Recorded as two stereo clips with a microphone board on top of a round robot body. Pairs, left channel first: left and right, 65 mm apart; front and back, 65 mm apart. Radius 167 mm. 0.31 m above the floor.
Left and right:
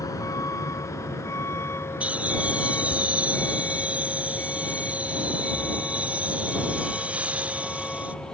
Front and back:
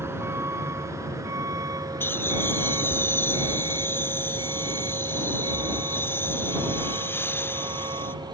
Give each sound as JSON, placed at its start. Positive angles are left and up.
{"t": 0.0, "sound": "a vehicle", "azimuth_deg": 125}
{"t": 2.0, "sound": "laughter", "azimuth_deg": -30}